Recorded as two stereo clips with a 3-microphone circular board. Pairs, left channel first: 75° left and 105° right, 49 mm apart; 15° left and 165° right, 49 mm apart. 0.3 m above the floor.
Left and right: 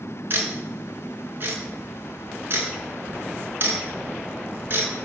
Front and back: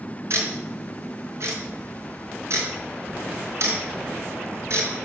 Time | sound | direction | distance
0.3 | ticking | 150° right | 4.5 m